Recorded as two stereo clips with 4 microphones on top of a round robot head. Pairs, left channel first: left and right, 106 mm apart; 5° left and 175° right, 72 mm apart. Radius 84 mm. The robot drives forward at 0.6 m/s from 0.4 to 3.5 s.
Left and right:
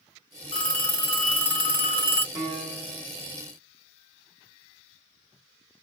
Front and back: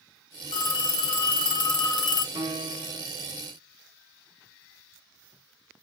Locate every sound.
0.5 s a phone ringing: 10° left, 2.0 m; by 2.2 s 25° left, 1.0 m
2.4 s a piano: 160° right, 1.2 m; by 3.1 s 165° right, 1.6 m